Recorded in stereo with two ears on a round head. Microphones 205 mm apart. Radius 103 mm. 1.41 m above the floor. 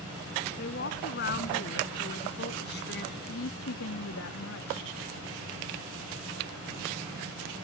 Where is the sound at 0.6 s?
45° left (ahead or behind); by 3.1 s 50° left (ahead or behind).